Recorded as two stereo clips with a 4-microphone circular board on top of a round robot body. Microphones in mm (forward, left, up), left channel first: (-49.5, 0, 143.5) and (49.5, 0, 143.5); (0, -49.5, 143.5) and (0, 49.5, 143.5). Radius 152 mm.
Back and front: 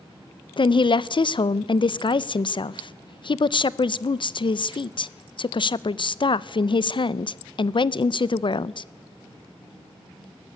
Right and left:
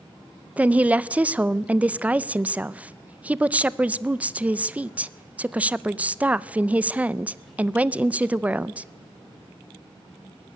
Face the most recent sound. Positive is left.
turn(degrees=165)